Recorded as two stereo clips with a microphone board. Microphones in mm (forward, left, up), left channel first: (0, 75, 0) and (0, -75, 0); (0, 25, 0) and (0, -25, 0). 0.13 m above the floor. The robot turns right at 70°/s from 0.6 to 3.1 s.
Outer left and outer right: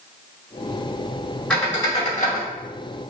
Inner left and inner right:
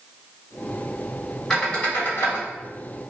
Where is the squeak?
5° left (ahead or behind), 1.9 m; by 2.5 s 75° left (ahead or behind), 1.9 m.